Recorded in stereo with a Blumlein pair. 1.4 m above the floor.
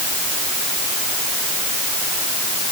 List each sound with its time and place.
Only background noise.